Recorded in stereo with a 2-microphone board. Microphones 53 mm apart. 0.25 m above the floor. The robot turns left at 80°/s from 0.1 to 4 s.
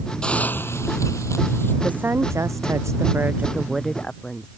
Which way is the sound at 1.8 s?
25° right.